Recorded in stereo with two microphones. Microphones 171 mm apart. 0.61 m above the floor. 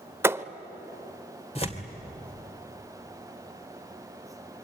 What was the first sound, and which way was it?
A thud, 15° right (ahead or behind).